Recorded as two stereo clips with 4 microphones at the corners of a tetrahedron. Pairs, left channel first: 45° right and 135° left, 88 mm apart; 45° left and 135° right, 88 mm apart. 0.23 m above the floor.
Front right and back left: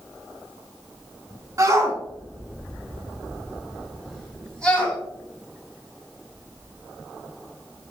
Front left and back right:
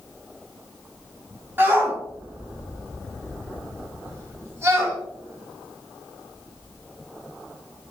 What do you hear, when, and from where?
1.6 s a shout: 170° left, 2 m; by 5.0 s 100° right, 1.8 m